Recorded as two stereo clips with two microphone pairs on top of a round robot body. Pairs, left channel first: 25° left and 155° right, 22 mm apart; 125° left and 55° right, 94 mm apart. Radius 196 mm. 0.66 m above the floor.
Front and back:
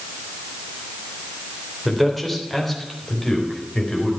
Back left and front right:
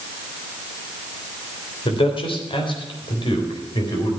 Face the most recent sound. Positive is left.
turn(degrees=90)